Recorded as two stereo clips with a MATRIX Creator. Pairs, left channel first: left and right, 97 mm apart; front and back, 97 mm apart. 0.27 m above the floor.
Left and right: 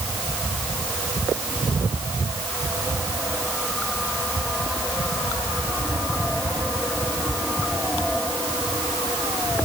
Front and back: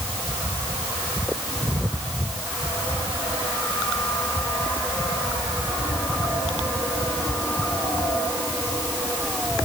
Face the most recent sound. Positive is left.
No sound to turn to.